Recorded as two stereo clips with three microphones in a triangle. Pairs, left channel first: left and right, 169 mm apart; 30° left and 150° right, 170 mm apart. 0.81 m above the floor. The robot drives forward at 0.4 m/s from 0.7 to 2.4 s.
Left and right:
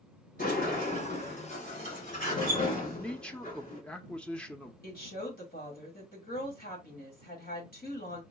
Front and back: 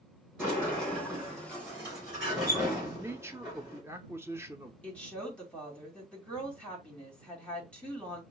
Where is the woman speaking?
110° left, 2.5 m.